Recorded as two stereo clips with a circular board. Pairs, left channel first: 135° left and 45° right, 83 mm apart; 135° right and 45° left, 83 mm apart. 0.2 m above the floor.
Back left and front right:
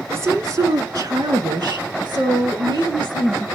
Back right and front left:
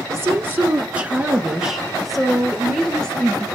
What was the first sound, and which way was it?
A woman speaking, straight ahead.